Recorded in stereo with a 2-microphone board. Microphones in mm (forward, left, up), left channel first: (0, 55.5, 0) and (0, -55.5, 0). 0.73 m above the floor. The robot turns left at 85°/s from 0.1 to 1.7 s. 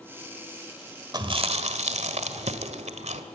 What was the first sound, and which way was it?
Chewing, 40° right (ahead or behind).